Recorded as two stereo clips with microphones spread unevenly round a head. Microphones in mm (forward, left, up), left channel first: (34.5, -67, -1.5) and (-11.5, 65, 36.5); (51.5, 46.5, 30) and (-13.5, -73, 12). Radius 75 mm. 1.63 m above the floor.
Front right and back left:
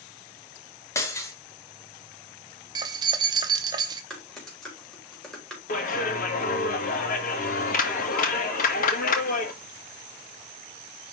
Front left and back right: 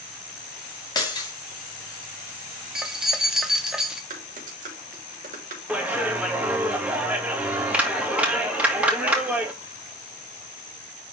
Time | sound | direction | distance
0.9 | breaking glass | 5° left | 1.9 m
2.8 | keys jangling | 150° left | 0.8 m
4.1 | typing on a keyboard | 160° right | 3 m
5.7 | a clap | 35° right | 1.9 m